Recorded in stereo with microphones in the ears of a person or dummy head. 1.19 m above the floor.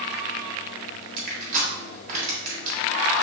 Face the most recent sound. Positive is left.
turn(degrees=-50)  # may be behind; listen again after turning